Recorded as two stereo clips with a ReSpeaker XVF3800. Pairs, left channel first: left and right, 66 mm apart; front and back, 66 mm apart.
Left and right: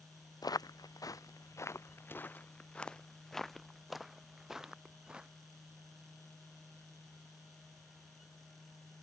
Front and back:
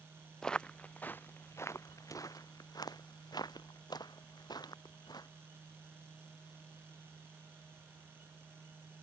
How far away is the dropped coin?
I don't hear a dropped coin.